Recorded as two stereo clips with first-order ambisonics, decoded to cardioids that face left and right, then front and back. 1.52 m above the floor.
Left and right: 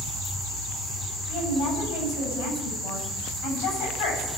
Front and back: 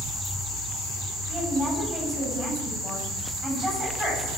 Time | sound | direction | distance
1.3 | a woman speaking | 105° left | 9.5 m